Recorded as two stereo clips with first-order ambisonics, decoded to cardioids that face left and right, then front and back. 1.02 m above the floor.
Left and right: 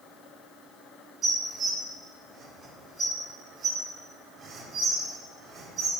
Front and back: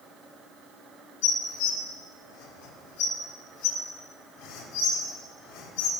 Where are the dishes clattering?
30° right, 1.7 m.